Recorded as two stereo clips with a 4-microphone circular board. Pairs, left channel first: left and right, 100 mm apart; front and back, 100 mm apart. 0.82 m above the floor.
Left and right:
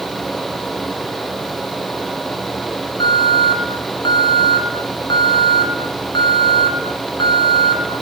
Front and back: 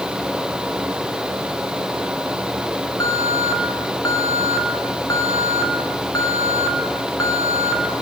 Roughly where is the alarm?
Ahead left.